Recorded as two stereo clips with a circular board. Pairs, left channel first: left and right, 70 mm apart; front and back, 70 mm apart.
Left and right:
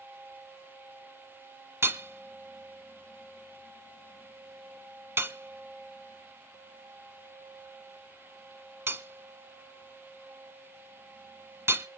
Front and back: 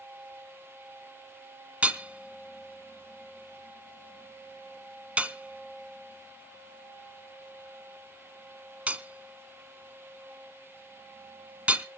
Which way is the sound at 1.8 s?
120° right.